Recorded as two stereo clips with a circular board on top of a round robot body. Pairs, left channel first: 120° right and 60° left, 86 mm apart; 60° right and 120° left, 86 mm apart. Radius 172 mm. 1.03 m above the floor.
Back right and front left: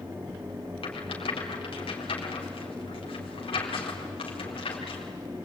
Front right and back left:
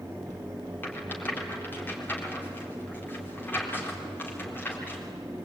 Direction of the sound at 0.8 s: 130° right.